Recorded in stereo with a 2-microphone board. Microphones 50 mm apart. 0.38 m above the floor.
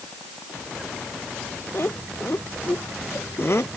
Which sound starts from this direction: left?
Laughter, at 1.7 s.